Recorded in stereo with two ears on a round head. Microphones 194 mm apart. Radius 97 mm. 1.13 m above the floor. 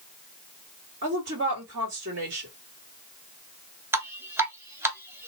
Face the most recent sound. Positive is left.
turn(degrees=-10)  # may be behind; listen again after turning